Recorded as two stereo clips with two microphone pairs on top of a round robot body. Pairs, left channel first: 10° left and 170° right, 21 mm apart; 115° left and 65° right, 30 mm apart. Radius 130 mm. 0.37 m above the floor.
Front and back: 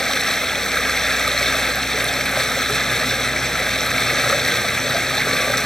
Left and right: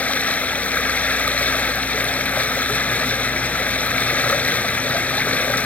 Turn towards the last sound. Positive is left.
turn(degrees=80)